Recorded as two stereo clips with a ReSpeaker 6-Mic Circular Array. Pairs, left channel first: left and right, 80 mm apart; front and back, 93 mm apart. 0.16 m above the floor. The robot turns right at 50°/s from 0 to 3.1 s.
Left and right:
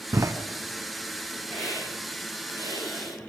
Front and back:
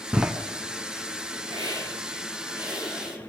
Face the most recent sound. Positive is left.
turn(degrees=-90)